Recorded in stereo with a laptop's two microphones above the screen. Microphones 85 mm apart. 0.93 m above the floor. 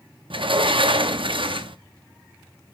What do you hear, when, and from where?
0.3 s a sliding door: 80° right, 0.8 m